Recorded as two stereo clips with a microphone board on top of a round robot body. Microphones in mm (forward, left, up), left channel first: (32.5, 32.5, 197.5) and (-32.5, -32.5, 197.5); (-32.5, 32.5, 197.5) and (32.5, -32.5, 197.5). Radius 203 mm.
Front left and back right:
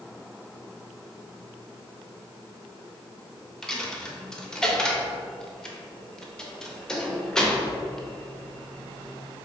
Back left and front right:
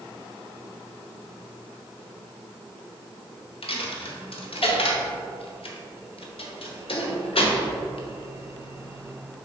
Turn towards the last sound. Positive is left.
turn(degrees=130)